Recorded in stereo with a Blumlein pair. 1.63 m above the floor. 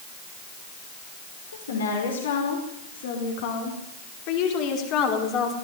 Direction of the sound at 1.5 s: 70° left.